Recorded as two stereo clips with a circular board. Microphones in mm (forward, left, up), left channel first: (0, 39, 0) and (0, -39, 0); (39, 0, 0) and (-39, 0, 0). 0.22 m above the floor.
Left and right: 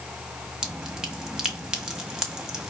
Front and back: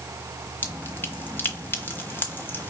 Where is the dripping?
15° right, 1.1 m.